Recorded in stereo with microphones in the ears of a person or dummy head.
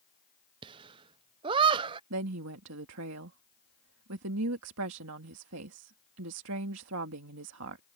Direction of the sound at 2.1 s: 70° right (ahead or behind).